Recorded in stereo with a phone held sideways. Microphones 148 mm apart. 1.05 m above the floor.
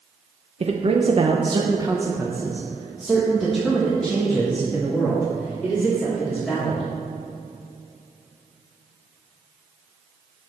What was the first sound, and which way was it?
A man speaking, 45° right (ahead or behind).